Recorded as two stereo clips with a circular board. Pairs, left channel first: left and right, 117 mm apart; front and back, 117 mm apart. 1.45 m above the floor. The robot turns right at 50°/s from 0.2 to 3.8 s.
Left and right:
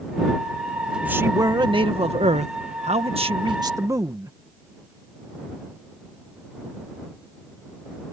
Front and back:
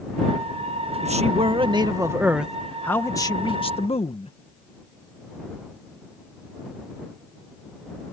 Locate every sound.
1.0 s a man speaking: 165° right; by 4.3 s 30° right